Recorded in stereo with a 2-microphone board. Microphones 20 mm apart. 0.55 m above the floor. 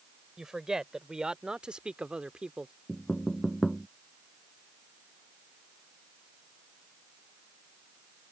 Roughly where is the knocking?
Left.